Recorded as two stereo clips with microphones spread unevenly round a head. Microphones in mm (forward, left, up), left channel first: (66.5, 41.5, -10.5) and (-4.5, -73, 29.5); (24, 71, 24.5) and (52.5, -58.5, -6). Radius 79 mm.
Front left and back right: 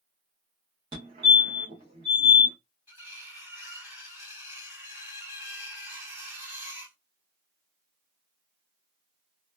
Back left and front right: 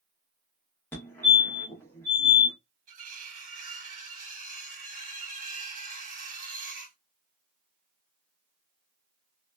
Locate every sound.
0.9 s a fire alarm: 175° right, 1.1 m
2.9 s cutlery clinking: 50° right, 1.1 m